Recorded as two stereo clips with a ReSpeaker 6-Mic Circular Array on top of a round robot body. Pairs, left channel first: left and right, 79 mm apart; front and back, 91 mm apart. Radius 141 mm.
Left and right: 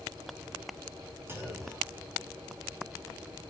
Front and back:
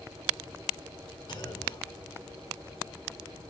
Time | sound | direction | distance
1.3 | a clunk | 35° right | 5 m